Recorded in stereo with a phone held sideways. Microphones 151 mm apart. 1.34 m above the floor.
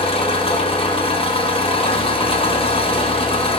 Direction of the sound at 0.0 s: 35° left (ahead or behind).